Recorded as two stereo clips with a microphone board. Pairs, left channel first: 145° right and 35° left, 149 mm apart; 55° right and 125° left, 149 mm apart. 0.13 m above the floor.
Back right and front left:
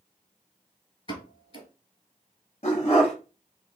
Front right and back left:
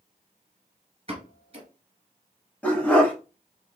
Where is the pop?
170° left, 1.0 m.